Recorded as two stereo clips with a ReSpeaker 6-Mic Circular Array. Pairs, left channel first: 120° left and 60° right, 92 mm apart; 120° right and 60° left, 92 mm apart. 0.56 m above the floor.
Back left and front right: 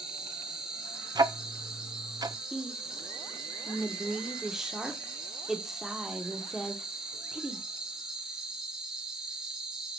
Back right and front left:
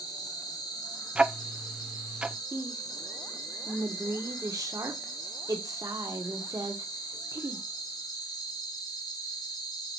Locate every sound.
0.0 s an insect: 140° right, 2 m
1.1 s ticking: 20° right, 0.5 m
2.5 s a woman speaking: 25° left, 1.3 m